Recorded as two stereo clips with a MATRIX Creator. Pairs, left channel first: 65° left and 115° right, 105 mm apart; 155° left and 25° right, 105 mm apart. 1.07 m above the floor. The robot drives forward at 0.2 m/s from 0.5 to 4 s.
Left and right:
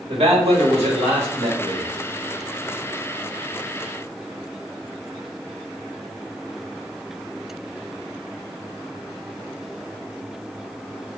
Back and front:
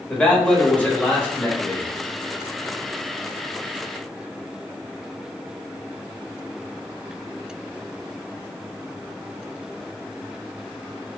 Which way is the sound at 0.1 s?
125° right.